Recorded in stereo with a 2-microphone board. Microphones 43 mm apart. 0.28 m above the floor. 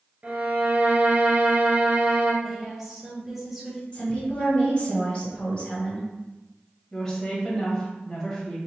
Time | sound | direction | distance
0.2 | a violin | 35° right (ahead or behind) | 0.8 m
2.4 | a woman speaking | 10° right (ahead or behind) | 1.1 m
3.9 | a woman speaking | 25° left (ahead or behind) | 1.4 m
6.9 | a woman speaking | 10° left (ahead or behind) | 1.2 m